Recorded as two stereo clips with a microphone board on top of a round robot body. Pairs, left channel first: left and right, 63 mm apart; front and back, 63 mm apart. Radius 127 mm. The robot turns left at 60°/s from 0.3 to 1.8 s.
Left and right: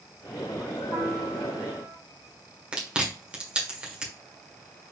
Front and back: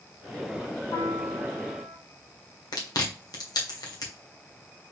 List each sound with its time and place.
0.9 s a piano: 5° right, 4 m; by 2.0 s 60° right, 4 m
2.7 s chewing: 15° right, 1.5 m